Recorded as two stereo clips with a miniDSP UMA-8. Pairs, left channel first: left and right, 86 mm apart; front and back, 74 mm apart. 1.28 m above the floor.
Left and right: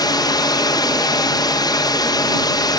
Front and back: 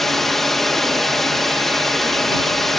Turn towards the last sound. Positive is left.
turn(degrees=85)